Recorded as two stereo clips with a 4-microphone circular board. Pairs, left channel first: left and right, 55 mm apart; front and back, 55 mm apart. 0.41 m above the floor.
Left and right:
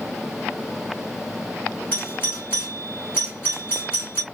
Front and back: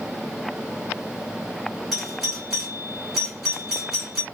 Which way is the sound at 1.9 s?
100° left.